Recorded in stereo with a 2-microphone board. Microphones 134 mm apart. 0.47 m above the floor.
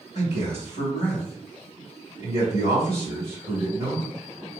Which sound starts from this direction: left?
A man speaking, at 0.1 s.